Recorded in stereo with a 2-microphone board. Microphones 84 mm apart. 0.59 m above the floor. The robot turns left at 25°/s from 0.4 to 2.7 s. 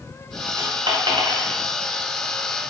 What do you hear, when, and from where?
0.6 s a dropped coin: 85° right, 1.7 m; by 1.6 s 65° right (ahead or behind), 1.7 m